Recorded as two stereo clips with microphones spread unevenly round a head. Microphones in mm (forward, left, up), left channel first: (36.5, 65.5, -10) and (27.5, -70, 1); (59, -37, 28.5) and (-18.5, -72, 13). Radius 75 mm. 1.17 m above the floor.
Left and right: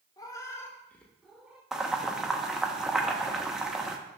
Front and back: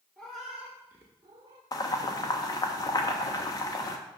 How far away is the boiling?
About 0.8 m.